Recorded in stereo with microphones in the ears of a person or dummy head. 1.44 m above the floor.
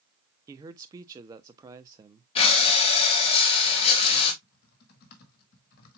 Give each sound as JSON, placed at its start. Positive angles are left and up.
{"t": 0.5, "sound": "a man speaking", "side_deg": -15, "distance_m": 0.6}
{"t": 2.4, "sound": "breathing", "side_deg": 35, "distance_m": 1.4}
{"t": 4.4, "sound": "typing on a keyboard", "side_deg": 55, "distance_m": 1.5}